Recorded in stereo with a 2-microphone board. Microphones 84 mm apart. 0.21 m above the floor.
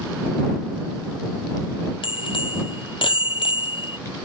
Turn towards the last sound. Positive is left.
turn(degrees=70)  # may be behind; listen again after turning